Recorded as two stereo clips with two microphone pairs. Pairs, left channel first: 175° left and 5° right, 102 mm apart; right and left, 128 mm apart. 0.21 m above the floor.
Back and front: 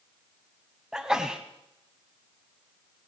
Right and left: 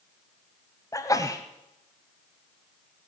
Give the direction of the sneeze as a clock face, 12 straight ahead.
3 o'clock.